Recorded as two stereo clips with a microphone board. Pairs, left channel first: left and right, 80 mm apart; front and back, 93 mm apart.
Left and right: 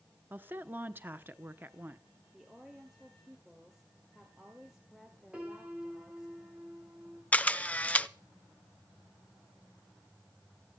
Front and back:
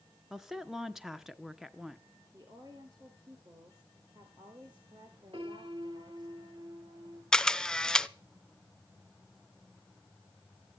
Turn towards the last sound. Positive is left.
turn(degrees=70)